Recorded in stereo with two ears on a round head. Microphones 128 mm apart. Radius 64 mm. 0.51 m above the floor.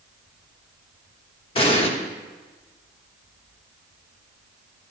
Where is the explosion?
40° left (ahead or behind), 1.2 m.